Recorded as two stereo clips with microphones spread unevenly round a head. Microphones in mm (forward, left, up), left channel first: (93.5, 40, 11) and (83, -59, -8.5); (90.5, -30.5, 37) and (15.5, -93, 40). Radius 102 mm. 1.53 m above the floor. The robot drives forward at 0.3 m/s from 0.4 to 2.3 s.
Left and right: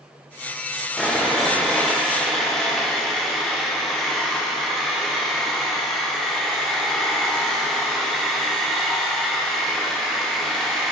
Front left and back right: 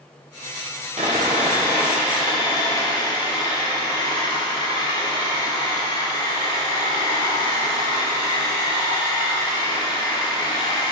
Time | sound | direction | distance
1.0 | sawing | 165° left | 0.9 m